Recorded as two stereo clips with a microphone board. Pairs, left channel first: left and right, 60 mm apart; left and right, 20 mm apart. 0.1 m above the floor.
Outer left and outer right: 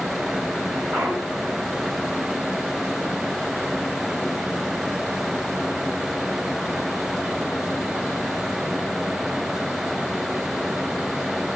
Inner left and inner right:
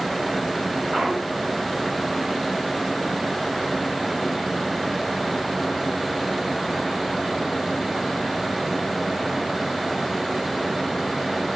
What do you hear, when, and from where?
0.9 s a clunk: 15° right (ahead or behind), 5 m